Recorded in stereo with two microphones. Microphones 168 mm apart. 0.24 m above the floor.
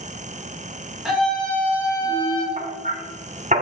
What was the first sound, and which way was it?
A scream, 5° right (ahead or behind).